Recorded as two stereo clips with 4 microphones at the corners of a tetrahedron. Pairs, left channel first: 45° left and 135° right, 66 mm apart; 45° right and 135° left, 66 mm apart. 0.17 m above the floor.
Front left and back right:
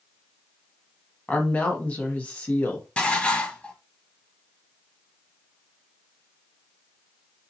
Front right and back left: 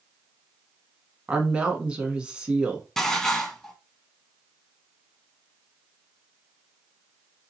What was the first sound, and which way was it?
A woman speaking, 80° left.